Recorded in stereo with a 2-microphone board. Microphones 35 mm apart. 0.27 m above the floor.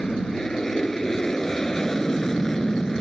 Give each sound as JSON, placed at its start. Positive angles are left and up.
{"t": 0.0, "sound": "an aircraft", "side_deg": 15}